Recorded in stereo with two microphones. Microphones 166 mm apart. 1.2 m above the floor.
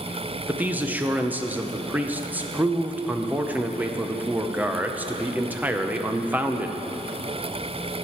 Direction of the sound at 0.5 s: 10° right (ahead or behind).